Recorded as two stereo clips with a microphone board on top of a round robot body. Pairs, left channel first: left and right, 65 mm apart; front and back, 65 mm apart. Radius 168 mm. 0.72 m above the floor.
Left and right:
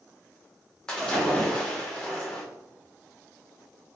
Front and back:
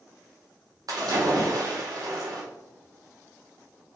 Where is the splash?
170° left, 1.6 m.